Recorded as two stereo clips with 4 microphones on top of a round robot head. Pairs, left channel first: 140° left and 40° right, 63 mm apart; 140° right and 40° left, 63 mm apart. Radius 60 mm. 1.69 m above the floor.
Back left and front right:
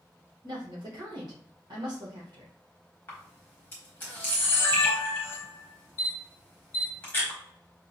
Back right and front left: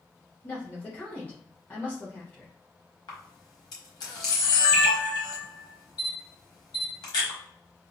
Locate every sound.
0.4 s a woman speaking: 70° right, 1.4 m
3.1 s a camera shutter: 165° right, 1.1 m